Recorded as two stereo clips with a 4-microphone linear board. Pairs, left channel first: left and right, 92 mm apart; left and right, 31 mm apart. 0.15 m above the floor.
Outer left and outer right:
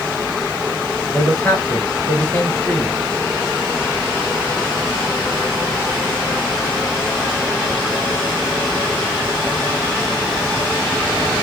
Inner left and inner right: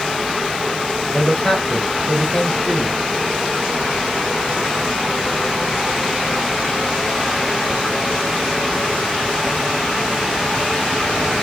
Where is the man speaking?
15° left (ahead or behind), 2.5 m.